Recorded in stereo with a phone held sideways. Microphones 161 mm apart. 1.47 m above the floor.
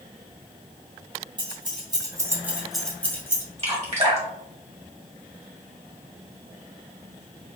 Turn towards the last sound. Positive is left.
turn(degrees=-40)  # may be behind; listen again after turning